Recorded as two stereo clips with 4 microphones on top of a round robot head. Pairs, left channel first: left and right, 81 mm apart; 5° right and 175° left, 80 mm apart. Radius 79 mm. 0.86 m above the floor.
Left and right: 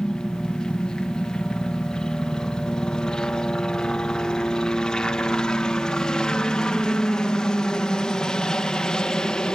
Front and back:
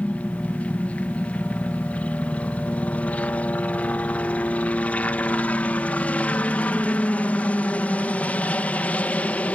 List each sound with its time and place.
0.0 s a helicopter: 25° left